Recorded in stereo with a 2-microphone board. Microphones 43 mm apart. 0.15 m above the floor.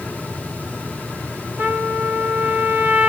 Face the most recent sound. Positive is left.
turn(degrees=-55)  # may be behind; listen again after turning